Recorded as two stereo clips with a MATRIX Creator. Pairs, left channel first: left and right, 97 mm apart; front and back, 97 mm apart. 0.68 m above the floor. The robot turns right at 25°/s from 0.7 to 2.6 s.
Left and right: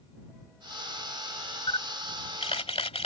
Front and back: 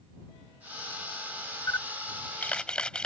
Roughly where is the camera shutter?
Ahead left.